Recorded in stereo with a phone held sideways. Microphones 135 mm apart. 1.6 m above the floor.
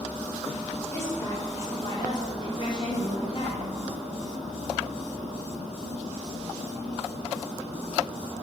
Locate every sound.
0.9 s a woman speaking: 20° left (ahead or behind), 5.5 m; by 3.6 s 50° left (ahead or behind), 5.5 m